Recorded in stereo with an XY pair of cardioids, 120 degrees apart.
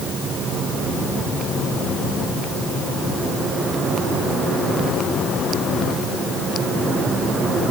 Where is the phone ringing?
No phone ringing in this recording.